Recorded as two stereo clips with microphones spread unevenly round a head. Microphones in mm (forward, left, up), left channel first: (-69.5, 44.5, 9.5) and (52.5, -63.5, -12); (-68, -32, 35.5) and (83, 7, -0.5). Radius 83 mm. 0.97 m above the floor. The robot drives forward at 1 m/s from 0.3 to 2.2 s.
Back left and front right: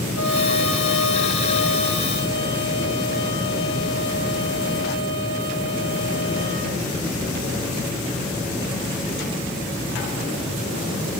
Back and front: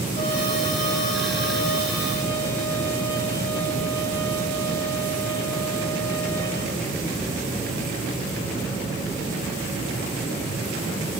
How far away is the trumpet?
About 3 m.